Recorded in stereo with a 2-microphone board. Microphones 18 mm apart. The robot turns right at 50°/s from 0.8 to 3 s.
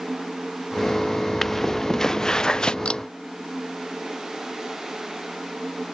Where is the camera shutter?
60° left (ahead or behind); by 3.0 s 65° left (ahead or behind).